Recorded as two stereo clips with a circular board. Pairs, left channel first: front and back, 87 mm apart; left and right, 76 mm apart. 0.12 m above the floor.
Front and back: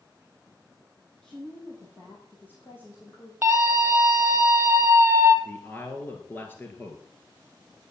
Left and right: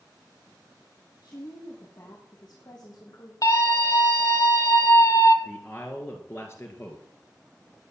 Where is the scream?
115° left, 3.5 m.